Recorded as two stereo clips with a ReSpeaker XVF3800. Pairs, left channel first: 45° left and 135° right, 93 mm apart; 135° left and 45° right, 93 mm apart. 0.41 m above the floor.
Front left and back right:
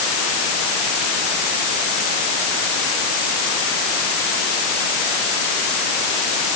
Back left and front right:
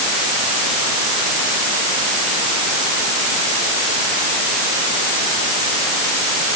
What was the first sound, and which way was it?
Only background noise.